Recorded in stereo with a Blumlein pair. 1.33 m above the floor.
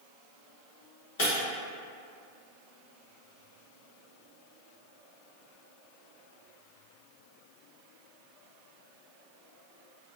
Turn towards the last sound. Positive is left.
turn(degrees=55)